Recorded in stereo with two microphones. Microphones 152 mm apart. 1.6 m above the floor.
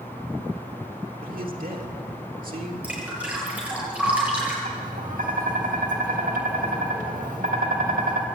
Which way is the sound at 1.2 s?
70° right (ahead or behind).